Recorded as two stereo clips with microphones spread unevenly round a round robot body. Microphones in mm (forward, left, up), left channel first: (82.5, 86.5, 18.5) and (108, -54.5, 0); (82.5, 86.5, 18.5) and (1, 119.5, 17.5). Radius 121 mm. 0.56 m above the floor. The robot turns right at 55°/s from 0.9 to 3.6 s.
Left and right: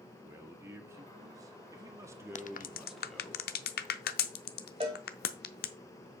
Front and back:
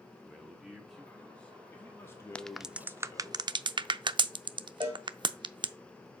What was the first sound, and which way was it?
A man speaking, 120° right.